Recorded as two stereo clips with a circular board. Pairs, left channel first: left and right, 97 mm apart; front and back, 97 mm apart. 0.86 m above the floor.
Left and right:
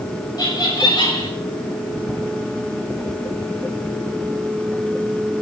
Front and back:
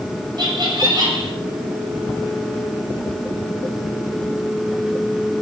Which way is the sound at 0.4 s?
135° left.